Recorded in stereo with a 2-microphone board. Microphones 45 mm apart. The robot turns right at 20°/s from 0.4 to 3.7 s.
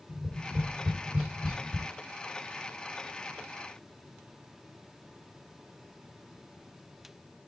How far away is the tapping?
About 4 m.